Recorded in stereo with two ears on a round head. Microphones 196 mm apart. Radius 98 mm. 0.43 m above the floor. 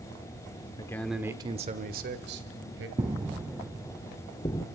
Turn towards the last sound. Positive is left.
turn(degrees=20)  # may be behind; listen again after turning